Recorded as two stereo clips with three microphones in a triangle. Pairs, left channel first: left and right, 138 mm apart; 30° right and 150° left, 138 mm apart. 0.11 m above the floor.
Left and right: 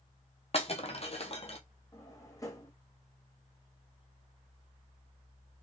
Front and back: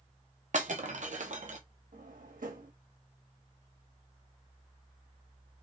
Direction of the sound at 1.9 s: 155° left.